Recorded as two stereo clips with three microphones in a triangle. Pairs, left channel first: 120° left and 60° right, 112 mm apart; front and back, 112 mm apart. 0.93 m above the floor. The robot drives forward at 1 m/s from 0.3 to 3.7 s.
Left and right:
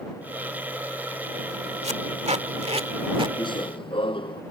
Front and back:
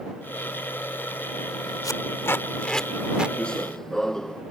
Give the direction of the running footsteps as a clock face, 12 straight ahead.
9 o'clock.